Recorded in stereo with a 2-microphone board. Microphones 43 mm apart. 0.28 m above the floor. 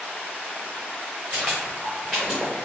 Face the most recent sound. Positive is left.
turn(degrees=0)  # may be behind; listen again after turning